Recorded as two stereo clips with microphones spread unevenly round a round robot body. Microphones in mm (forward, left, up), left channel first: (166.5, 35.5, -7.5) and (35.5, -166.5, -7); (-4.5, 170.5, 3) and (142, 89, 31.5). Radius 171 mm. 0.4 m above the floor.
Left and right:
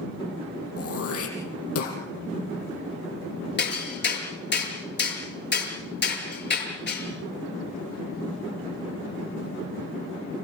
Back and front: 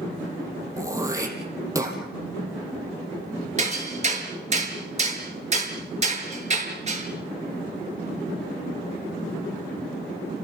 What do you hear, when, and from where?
0.8 s throat clearing: 40° left, 5 m
3.6 s hammering: 15° left, 5.5 m